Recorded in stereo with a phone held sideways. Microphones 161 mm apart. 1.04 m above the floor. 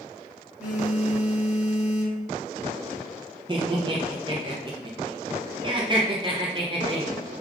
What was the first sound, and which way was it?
A phone buzzing, 5° right (ahead or behind).